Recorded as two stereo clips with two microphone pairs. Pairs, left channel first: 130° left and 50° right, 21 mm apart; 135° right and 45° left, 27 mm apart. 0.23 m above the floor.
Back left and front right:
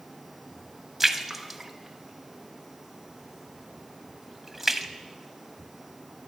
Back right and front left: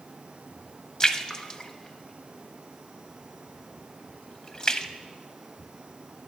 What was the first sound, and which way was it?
A splash, 125° right.